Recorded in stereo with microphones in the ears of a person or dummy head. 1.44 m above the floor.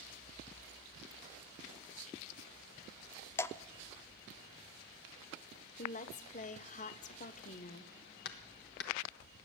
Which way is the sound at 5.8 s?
35° left (ahead or behind).